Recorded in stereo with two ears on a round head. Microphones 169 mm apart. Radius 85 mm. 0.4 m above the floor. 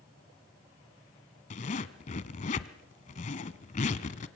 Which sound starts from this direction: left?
A zipper, at 1.5 s.